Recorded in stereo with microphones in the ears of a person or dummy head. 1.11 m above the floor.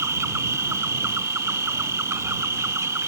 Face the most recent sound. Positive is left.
turn(degrees=-20)  # may be behind; listen again after turning